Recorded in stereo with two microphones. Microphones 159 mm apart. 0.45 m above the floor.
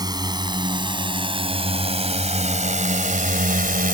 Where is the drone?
25° right (ahead or behind); by 4.0 s 60° right (ahead or behind).